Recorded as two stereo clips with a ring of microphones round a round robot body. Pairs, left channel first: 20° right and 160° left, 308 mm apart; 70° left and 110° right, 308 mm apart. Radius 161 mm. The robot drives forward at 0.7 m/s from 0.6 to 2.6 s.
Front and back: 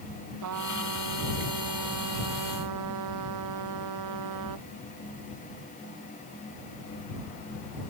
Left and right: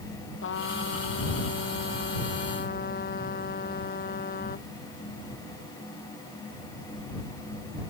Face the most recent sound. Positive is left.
turn(degrees=130)